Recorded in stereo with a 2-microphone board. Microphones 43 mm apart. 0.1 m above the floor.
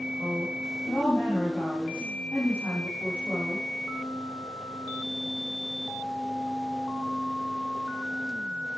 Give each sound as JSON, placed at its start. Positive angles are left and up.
{"t": 0.2, "sound": "a woman speaking", "side_deg": 55, "distance_m": 5.5}